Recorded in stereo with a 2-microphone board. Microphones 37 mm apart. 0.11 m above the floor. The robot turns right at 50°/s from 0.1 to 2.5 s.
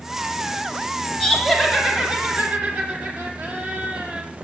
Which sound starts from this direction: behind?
Laughter, at 1.2 s.